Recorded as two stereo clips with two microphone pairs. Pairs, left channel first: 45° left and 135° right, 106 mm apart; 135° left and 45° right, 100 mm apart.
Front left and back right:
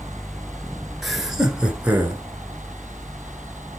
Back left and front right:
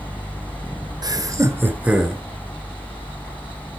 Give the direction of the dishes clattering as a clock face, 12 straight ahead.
No dishes clattering in this recording.